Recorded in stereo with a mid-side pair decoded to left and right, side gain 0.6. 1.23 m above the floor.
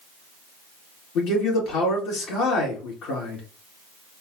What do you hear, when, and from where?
1.1 s a man speaking: 65° left, 2.5 m